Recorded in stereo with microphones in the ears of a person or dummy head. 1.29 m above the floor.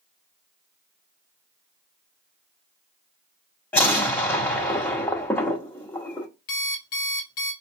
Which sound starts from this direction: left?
An alarm clock, at 6.5 s.